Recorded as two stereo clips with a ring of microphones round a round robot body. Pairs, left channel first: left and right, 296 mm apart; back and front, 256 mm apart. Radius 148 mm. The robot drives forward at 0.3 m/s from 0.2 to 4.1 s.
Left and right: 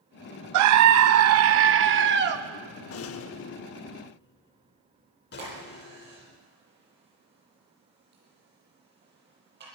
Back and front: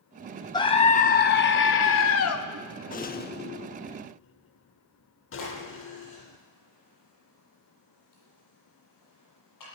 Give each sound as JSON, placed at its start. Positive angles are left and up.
{"t": 0.5, "sound": "a scream", "azimuth_deg": -105, "distance_m": 0.6}
{"t": 2.9, "sound": "a rattle", "azimuth_deg": 125, "distance_m": 0.8}
{"t": 5.4, "sound": "a crack", "azimuth_deg": -145, "distance_m": 9.0}